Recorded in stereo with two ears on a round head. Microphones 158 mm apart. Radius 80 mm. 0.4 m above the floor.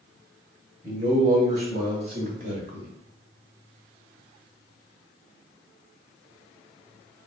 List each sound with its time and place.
0.8 s a man speaking: 15° right (ahead or behind), 2 m; by 2.9 s 55° right (ahead or behind), 2 m